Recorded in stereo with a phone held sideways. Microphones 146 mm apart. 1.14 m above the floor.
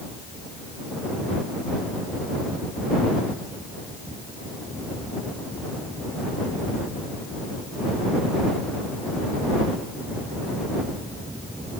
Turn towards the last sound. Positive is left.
No sound to turn to.